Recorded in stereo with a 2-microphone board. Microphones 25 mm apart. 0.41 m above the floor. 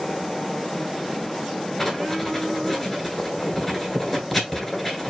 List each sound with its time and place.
1.8 s writing: 5° left (ahead or behind), 1.7 m